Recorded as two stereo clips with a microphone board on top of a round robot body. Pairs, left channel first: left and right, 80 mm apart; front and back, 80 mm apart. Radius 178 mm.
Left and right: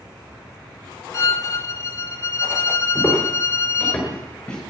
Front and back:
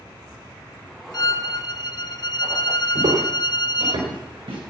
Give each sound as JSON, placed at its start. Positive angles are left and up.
{"t": 1.1, "sound": "a violin", "azimuth_deg": 35, "distance_m": 0.7}
{"t": 3.0, "sound": "footsteps", "azimuth_deg": 175, "distance_m": 4.5}